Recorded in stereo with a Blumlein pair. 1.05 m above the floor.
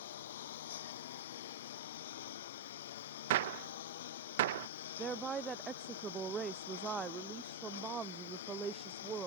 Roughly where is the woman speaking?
Ahead.